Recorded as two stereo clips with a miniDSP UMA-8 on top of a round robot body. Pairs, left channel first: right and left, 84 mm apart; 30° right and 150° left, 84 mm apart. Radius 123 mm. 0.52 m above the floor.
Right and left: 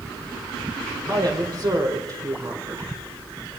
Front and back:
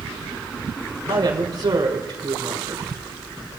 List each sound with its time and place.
1.1 s a woman speaking: 130° left, 3.5 m